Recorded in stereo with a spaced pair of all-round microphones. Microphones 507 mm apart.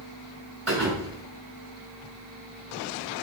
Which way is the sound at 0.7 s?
80° right.